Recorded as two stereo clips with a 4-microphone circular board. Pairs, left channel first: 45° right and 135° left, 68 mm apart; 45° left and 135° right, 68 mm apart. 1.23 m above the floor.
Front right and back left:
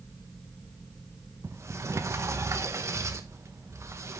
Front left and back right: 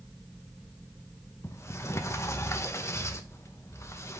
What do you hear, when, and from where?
1.4 s a sliding door: 90° left, 1.0 m